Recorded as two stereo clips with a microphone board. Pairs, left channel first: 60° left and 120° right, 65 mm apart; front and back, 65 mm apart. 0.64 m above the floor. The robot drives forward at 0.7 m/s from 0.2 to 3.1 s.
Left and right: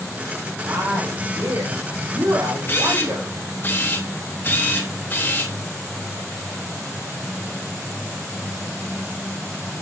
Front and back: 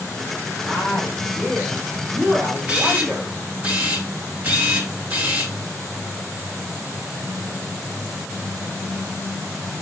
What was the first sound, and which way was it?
A woman speaking, 85° right.